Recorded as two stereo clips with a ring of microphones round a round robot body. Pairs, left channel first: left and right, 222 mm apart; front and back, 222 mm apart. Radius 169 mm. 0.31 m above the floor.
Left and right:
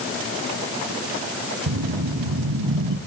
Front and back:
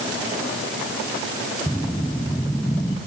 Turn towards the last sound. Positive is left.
turn(degrees=-85)